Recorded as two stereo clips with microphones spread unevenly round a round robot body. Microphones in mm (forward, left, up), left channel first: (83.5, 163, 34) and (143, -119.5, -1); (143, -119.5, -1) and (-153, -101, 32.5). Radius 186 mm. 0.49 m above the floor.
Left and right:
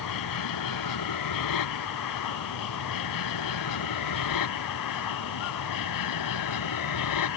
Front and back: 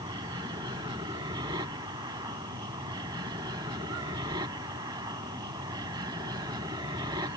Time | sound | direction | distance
0.0 | an aircraft | 95° left | ?